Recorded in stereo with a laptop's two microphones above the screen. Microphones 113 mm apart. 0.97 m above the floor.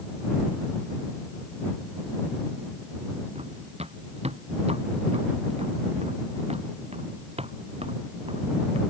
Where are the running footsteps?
65° right (ahead or behind).